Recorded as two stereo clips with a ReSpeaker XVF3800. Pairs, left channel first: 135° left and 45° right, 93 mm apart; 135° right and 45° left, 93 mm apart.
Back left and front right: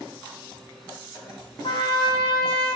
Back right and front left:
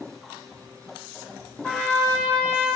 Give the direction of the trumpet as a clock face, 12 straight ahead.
7 o'clock.